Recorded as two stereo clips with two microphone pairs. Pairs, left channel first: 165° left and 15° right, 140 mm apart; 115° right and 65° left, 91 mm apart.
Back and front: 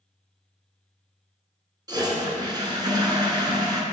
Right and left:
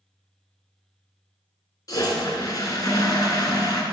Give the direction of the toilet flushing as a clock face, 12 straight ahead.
2 o'clock.